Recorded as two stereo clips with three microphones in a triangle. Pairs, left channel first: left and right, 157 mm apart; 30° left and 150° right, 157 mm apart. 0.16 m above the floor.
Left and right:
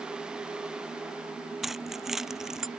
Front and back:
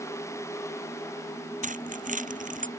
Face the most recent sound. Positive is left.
turn(degrees=-175)